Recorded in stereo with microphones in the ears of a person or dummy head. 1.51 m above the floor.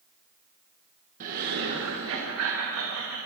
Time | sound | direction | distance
1.2 | laughter | 40° right (ahead or behind) | 1.5 m